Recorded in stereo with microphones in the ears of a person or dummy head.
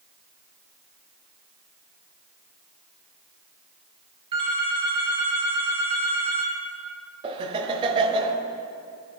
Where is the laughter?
30° right (ahead or behind), 1.0 m.